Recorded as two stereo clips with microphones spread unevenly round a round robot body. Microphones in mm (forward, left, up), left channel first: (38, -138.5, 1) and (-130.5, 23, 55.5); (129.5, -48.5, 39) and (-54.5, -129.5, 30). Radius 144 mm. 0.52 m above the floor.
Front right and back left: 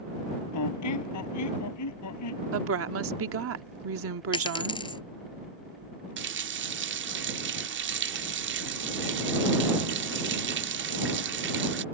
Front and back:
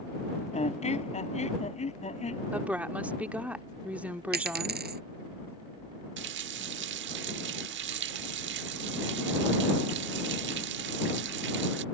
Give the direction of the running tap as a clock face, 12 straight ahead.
6 o'clock.